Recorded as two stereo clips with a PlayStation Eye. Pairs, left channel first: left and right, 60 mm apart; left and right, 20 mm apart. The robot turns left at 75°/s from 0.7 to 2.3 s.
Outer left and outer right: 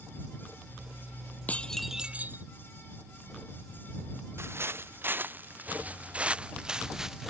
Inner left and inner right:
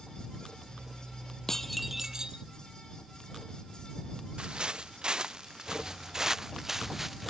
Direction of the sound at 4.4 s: 45° right (ahead or behind).